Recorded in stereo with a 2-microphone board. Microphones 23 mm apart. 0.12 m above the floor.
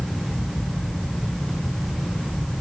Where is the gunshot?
No gunshot in this recording.